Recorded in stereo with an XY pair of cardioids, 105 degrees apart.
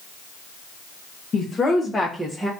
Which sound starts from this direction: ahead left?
A woman speaking, at 1.3 s.